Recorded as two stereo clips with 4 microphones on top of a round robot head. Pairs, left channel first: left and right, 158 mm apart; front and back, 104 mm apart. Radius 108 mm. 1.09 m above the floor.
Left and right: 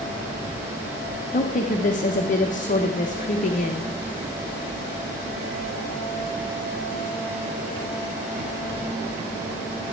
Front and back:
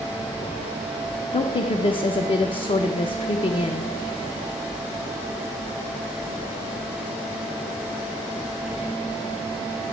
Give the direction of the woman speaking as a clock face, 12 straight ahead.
10 o'clock.